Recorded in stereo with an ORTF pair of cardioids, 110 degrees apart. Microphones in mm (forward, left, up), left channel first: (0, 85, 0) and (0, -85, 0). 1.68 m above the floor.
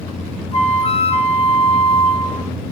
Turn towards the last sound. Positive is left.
turn(degrees=35)